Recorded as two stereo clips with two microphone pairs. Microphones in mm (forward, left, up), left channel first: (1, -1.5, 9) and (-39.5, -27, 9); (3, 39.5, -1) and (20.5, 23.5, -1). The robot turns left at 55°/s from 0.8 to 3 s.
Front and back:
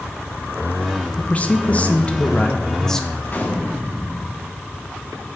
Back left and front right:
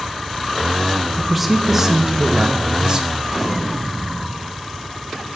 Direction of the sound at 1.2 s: 55° left.